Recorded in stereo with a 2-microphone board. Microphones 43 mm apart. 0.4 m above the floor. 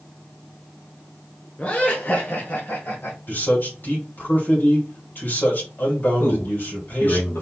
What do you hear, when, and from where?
1.6 s laughter: 30° left (ahead or behind), 1.4 m; by 3.2 s 60° left (ahead or behind), 2 m
3.3 s a man speaking: 50° left (ahead or behind), 2.5 m
6.2 s a man speaking: 60° left (ahead or behind), 2.5 m